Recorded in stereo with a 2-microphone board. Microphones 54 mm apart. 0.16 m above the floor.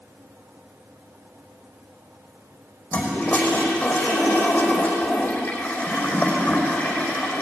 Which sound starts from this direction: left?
A toilet flushing, at 2.9 s.